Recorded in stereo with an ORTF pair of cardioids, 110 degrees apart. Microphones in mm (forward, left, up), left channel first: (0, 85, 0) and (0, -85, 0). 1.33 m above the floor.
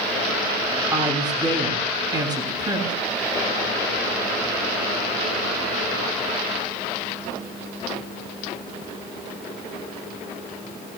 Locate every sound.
0.9 s a woman speaking: 25° right, 7.5 m